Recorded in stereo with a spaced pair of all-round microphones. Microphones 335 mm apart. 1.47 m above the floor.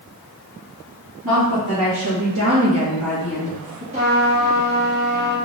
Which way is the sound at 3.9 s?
20° right (ahead or behind).